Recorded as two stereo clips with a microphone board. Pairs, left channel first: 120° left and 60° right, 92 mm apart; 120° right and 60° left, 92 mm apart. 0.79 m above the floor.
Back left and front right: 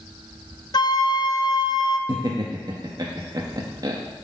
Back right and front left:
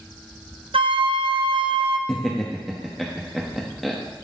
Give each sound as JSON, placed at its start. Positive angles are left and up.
{"t": 0.7, "sound": "a flute", "azimuth_deg": 75, "distance_m": 0.6}
{"t": 2.1, "sound": "laughter", "azimuth_deg": -30, "distance_m": 0.8}